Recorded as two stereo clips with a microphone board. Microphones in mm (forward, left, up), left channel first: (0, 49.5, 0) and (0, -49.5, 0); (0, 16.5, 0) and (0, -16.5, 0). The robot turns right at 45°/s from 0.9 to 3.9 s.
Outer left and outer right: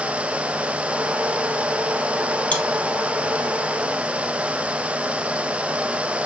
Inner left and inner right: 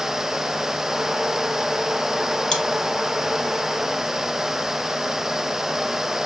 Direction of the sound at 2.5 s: 15° left (ahead or behind).